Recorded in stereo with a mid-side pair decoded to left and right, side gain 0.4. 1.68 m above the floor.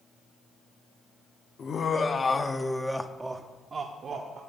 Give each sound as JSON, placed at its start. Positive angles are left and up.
{"t": 1.6, "sound": "laughter", "azimuth_deg": 50, "distance_m": 1.0}